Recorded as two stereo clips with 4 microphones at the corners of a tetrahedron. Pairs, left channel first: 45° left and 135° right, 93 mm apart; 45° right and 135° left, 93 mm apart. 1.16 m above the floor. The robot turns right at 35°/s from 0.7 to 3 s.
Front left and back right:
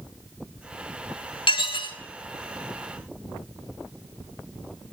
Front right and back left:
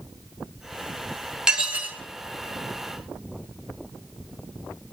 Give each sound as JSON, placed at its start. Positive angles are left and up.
{"t": 1.5, "sound": "dishes clattering", "azimuth_deg": 50, "distance_m": 0.8}